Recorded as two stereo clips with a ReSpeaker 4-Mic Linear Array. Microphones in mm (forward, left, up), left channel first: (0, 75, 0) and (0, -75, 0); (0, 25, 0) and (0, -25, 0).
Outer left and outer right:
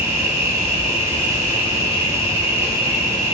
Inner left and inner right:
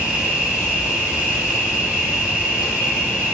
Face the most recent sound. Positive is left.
turn(degrees=-25)  # may be behind; listen again after turning